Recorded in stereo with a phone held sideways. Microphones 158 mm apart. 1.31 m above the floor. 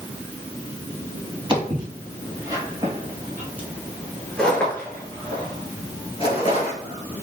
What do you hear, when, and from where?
1.5 s footsteps: 30° right (ahead or behind), 2 m; by 7.2 s 45° left (ahead or behind), 1.8 m